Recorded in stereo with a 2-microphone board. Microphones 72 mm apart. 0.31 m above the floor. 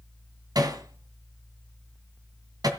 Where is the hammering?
60° right (ahead or behind), 2.5 m.